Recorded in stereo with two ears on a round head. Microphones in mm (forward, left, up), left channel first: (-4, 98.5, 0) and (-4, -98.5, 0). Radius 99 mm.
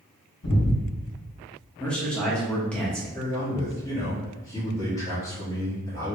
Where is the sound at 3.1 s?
15° left (ahead or behind), 1.7 m.